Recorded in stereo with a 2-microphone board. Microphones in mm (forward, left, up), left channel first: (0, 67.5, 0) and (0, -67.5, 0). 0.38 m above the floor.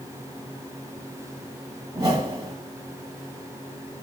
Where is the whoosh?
50° right (ahead or behind), 1.0 m.